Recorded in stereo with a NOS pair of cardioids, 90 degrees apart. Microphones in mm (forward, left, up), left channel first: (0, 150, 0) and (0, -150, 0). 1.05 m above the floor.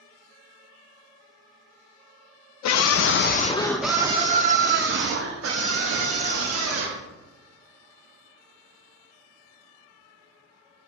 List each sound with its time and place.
2.6 s a scream: 65° left, 0.7 m; by 7.0 s 55° right, 2 m